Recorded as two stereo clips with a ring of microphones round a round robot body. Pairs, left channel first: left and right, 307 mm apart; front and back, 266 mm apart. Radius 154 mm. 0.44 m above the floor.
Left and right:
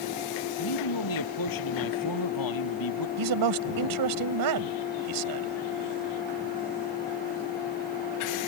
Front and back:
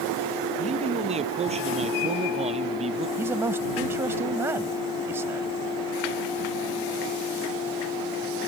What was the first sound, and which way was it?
A man speaking, 115° left.